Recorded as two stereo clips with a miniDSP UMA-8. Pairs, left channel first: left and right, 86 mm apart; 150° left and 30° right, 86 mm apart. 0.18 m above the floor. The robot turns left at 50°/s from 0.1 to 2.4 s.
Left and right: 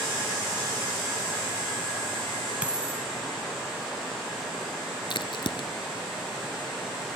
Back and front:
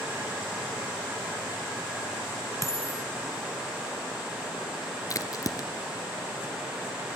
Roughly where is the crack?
Left.